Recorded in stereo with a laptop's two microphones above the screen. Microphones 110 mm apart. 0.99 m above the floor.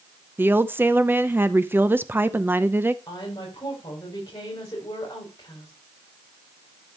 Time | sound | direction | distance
0.4 | a woman speaking | 20° right (ahead or behind) | 0.7 m
3.1 | a woman speaking | 35° left (ahead or behind) | 4.5 m